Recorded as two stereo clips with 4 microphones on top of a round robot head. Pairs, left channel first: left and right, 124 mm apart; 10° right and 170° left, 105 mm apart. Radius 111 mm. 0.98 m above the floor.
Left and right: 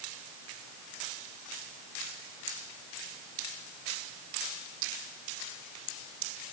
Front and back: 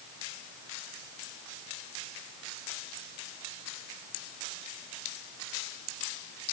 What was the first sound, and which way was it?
Only background noise.